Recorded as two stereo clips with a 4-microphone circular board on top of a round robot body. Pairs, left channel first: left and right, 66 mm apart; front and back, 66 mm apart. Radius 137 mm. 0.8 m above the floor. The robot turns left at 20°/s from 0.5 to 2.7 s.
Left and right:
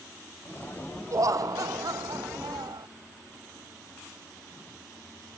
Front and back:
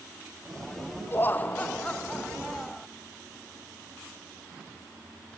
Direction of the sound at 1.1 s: 55° right.